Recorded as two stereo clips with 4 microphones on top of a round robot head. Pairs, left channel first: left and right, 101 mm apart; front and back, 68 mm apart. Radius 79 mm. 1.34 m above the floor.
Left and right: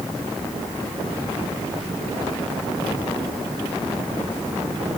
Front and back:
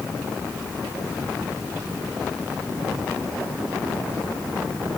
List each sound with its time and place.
Only background noise.